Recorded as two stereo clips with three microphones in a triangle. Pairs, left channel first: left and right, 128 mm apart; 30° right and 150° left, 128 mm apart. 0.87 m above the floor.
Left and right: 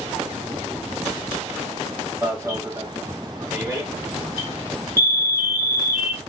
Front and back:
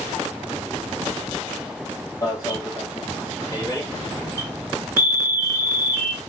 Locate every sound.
2.2 s an alarm: 50° right, 1.3 m